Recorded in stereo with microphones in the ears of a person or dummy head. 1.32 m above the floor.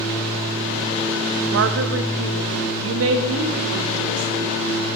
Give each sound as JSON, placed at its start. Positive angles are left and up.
{"t": 1.5, "sound": "a woman speaking", "side_deg": -70, "distance_m": 1.0}